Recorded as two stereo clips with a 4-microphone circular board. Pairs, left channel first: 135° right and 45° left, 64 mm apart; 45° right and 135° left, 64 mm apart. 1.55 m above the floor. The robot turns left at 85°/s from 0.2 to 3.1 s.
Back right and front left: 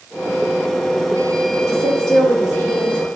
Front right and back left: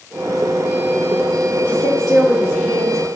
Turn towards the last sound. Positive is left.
turn(degrees=140)